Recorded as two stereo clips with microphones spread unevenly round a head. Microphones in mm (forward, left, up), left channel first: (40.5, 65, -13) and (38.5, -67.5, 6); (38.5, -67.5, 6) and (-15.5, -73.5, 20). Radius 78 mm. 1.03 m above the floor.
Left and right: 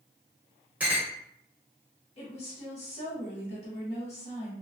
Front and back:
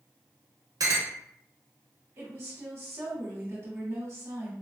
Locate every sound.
0.8 s a clink: 170° right, 0.9 m
2.2 s a woman speaking: 125° left, 1.4 m